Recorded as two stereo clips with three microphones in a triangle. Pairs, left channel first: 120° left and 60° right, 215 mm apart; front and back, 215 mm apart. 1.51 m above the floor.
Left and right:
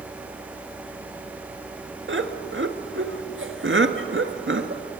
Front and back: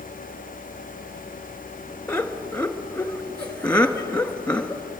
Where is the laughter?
85° right, 1.9 m.